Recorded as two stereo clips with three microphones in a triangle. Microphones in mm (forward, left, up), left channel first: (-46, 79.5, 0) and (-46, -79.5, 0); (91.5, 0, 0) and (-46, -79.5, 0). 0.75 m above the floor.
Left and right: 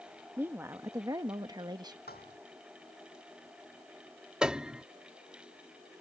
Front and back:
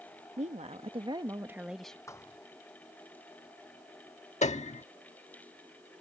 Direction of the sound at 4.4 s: 5° right.